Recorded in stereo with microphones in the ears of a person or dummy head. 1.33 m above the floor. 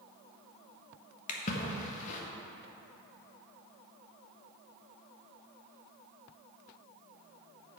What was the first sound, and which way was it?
A splash, 40° left (ahead or behind).